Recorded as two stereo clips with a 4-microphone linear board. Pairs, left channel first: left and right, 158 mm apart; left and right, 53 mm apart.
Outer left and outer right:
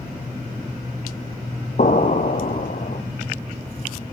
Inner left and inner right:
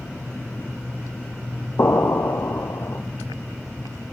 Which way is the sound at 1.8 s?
55° left (ahead or behind).